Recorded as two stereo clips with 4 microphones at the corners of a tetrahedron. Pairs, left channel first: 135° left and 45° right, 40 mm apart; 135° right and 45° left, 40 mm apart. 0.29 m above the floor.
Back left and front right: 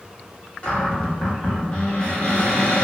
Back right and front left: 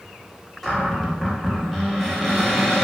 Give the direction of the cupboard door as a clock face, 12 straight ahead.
7 o'clock.